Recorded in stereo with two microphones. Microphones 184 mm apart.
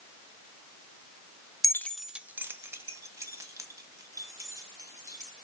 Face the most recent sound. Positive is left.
turn(degrees=-20)  # may be behind; listen again after turning